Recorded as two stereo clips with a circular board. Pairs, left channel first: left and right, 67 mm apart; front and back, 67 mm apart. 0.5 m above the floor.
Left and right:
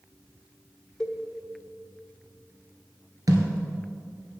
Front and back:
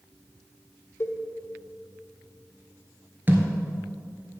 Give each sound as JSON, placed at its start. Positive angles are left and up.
{"t": 1.0, "sound": "a cowbell", "azimuth_deg": 10, "distance_m": 1.2}
{"t": 3.3, "sound": "a thud", "azimuth_deg": -120, "distance_m": 1.6}